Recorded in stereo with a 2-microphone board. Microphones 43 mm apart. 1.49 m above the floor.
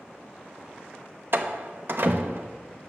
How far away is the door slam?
About 0.8 m.